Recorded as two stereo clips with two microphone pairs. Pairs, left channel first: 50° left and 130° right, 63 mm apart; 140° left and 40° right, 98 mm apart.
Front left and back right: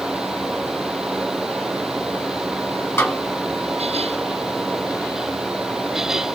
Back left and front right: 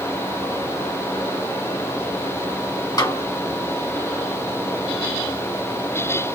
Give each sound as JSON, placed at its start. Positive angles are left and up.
{"t": 3.0, "sound": "a snare drum", "azimuth_deg": 95, "distance_m": 2.5}